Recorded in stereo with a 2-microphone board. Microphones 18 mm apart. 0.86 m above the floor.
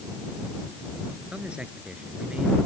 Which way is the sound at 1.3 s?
85° right.